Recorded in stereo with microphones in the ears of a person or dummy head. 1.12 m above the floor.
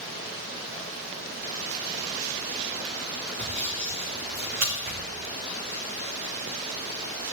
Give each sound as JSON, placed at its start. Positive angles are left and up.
{"t": 3.4, "sound": "sawing", "side_deg": -50, "distance_m": 2.5}